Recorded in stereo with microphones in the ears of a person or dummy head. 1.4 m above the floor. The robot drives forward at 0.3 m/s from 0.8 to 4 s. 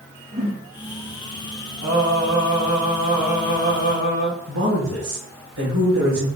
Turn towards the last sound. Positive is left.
turn(degrees=-85)